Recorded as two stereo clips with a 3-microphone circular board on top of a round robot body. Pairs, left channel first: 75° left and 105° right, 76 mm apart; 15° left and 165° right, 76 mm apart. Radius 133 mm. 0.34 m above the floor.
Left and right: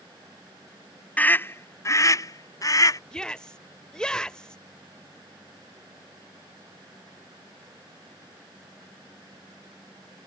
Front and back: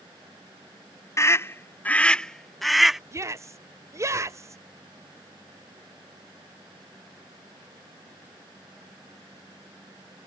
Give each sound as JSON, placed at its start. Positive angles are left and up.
{"t": 1.2, "sound": "a scream", "azimuth_deg": 15}
{"t": 3.1, "sound": "a shout", "azimuth_deg": 155}